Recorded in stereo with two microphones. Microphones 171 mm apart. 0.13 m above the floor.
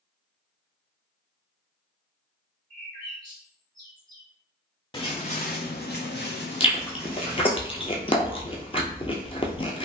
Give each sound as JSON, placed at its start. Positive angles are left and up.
{"t": 2.7, "sound": "a bird", "side_deg": 25, "distance_m": 1.5}
{"t": 4.9, "sound": "footsteps", "side_deg": 30, "distance_m": 0.8}
{"t": 6.6, "sound": "chewing", "side_deg": 35, "distance_m": 0.7}